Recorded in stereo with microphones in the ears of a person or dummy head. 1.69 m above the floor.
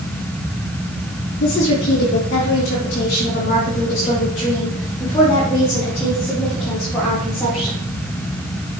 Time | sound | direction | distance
1.4 | a woman speaking | 60° left (ahead or behind) | 4 m